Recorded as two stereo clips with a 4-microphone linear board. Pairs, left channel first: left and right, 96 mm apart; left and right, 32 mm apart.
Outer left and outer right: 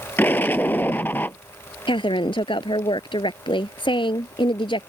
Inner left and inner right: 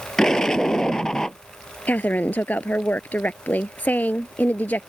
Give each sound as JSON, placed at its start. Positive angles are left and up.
{"t": 0.2, "sound": "an explosion", "side_deg": 20}
{"t": 1.9, "sound": "a woman speaking", "side_deg": 60}